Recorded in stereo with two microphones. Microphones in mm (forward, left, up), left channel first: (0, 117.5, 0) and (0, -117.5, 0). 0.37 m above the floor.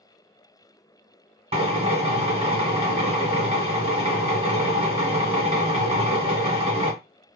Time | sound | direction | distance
1.5 | a drill | 25° right (ahead or behind) | 1.0 m